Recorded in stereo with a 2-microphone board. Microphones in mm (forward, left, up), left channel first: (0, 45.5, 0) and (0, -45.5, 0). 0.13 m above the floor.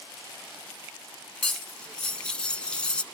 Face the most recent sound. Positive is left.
turn(degrees=10)  # may be behind; listen again after turning